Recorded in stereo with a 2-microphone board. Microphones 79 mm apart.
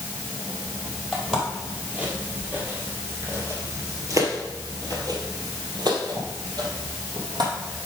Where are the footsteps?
10° right (ahead or behind), 2.5 m; by 7.5 s 60° right (ahead or behind), 3 m.